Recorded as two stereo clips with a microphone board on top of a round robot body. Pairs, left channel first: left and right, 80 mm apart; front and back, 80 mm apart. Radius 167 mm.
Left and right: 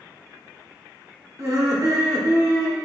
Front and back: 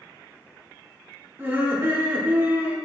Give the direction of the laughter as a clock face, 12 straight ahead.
4 o'clock.